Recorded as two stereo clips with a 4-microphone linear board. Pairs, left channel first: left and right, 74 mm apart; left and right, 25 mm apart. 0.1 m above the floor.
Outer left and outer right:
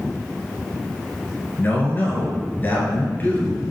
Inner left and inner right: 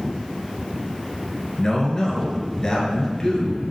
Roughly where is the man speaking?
Left.